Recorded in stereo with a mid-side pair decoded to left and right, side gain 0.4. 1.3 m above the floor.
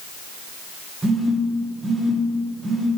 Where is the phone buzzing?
20° right, 1.6 m.